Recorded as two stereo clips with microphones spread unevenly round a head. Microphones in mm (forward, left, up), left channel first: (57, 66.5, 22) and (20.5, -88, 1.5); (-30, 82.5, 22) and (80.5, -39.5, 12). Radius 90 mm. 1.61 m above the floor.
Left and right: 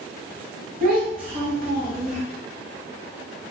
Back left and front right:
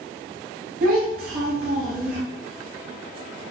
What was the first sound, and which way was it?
A child speaking, 85° right.